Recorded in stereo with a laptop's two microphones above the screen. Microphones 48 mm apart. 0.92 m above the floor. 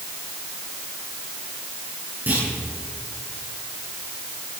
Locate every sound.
2.3 s a clunk: 35° right (ahead or behind), 8.5 m